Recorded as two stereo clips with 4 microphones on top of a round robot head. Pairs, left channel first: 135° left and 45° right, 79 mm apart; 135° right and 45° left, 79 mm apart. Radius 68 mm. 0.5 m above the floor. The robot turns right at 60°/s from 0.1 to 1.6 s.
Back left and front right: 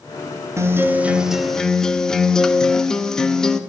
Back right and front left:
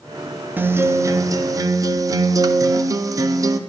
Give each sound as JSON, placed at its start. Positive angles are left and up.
{"t": 0.6, "sound": "a guitar", "azimuth_deg": -10, "distance_m": 0.6}